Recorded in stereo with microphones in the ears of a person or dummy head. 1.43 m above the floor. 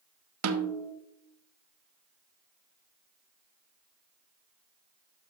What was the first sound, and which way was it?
A snare drum, 85° right.